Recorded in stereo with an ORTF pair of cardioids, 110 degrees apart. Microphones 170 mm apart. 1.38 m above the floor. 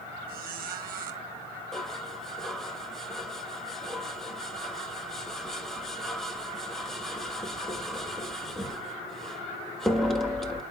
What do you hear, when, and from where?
0.3 s a squeak: 60° right, 1.3 m
1.7 s dishes clattering: straight ahead, 1.5 m